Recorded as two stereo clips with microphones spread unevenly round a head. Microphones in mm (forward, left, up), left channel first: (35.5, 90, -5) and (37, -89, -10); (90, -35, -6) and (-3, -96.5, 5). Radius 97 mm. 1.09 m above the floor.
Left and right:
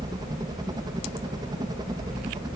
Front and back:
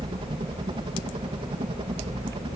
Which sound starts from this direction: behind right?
A helicopter, at 0.0 s.